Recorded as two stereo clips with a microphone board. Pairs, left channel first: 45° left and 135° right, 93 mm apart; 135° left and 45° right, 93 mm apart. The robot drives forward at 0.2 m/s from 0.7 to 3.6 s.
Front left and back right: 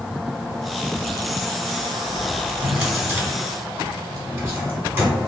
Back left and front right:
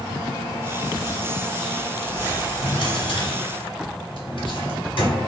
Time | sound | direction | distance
2.6 | a drawer | 155° left | 1.0 m